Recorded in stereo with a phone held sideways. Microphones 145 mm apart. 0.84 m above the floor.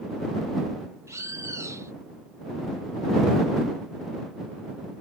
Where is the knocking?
I don't hear knocking.